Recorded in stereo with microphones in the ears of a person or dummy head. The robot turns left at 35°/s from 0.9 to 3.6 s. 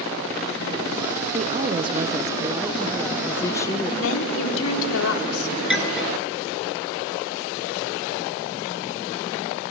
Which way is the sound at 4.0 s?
75° left (ahead or behind).